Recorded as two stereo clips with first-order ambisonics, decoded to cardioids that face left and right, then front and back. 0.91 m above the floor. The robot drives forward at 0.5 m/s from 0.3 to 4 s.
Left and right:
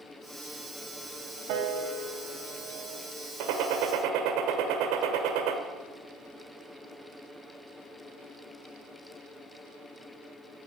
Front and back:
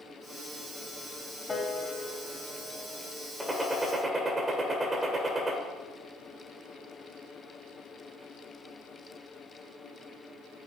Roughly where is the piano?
Right.